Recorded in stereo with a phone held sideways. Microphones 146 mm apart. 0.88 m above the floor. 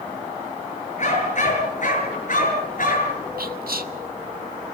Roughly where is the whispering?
Right.